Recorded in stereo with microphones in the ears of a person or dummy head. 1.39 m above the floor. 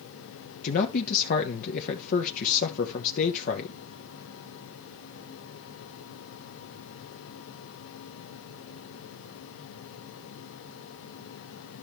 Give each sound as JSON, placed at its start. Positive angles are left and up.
{"t": 0.6, "sound": "a man speaking", "side_deg": 45, "distance_m": 1.0}